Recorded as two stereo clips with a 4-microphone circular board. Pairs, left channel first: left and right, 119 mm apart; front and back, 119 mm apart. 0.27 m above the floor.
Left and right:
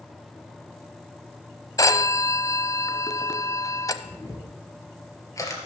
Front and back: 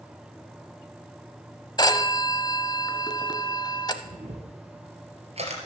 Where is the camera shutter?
150° left, 2.5 m.